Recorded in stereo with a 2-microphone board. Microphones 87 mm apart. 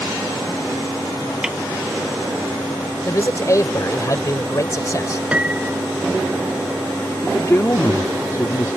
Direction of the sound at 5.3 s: 15° right (ahead or behind).